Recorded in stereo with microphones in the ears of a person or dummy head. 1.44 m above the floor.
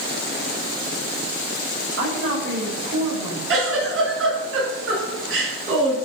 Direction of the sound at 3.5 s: 80° right.